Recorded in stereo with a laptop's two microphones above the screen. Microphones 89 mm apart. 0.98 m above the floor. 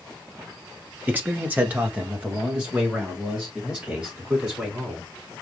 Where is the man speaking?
20° right (ahead or behind), 0.7 m; by 5.1 s 10° right (ahead or behind), 4 m.